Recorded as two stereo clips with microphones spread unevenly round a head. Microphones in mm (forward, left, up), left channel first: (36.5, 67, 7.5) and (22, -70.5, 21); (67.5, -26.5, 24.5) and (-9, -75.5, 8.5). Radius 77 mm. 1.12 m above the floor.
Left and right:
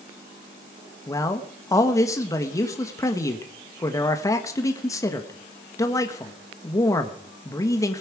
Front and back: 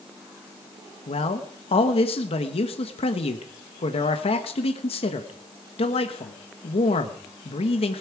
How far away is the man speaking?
About 1.2 m.